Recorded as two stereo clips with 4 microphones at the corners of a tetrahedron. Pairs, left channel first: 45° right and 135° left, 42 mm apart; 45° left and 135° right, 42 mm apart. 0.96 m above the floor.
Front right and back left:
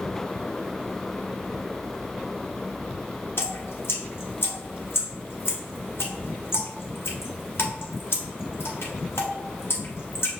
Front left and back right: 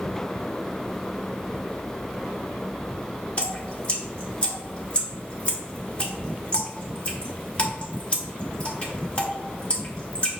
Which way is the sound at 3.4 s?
15° right.